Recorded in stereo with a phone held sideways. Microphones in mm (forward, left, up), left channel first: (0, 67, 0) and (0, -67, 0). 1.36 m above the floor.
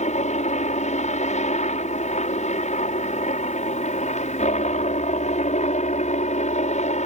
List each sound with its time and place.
0.0 s a helicopter: 65° left (ahead or behind)